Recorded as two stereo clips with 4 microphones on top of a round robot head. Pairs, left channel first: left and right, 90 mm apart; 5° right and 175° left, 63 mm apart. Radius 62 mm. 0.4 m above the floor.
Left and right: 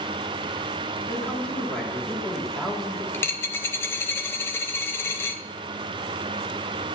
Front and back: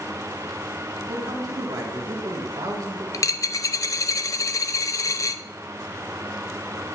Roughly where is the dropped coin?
Ahead.